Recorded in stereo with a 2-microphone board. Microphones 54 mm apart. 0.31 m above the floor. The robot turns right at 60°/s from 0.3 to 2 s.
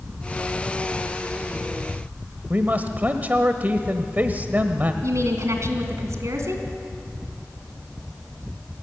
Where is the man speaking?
30° right (ahead or behind), 1.1 m.